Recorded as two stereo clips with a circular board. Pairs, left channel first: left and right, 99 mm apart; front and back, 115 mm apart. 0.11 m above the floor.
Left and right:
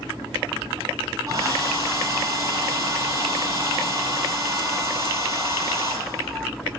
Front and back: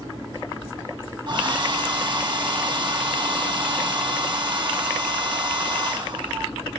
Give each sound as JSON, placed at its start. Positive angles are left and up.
{"t": 1.3, "sound": "a hair dryer", "azimuth_deg": -140, "distance_m": 3.0}